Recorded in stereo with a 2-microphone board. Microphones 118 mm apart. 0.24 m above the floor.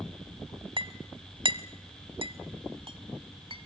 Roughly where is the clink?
Right.